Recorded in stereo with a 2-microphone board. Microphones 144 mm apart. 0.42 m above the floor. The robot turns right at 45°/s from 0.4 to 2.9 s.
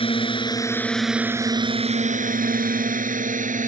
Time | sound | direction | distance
0.0 | a drone | 40° left (ahead or behind) | ?